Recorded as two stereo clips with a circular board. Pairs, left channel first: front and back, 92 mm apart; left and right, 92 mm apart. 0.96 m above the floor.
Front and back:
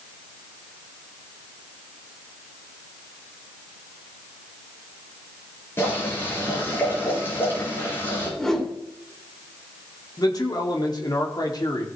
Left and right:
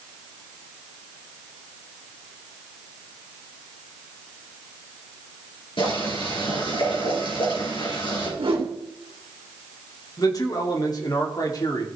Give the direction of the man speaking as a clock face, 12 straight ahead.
11 o'clock.